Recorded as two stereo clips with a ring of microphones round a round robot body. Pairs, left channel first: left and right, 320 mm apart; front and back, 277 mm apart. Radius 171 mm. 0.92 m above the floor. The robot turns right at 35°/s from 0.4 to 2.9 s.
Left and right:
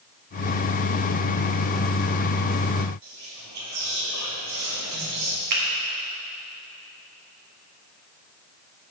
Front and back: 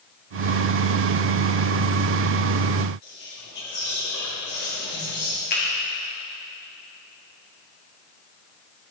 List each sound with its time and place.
3.0 s whispering: 55° right, 2 m
5.5 s a finger snap: 60° right, 1.5 m